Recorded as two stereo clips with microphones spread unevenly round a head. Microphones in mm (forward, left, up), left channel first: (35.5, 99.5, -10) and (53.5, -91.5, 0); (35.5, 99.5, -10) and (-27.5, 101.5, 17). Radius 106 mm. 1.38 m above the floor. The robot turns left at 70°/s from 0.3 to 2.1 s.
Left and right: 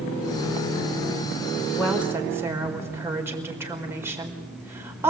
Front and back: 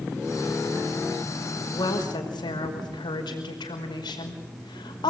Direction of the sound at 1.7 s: 20° left.